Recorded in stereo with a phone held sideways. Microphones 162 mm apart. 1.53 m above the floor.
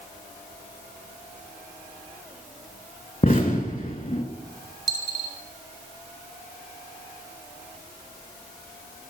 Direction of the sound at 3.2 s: 55° left (ahead or behind).